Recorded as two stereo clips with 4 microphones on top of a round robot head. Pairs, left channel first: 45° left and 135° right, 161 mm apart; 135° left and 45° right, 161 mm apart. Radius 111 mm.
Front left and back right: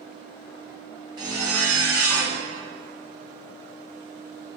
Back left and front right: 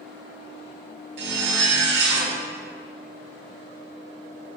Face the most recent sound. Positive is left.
turn(degrees=-65)